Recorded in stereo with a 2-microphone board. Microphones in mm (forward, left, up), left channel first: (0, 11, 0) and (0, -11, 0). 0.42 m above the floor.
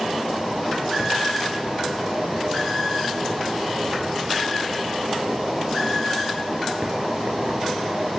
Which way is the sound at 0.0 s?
75° right (ahead or behind).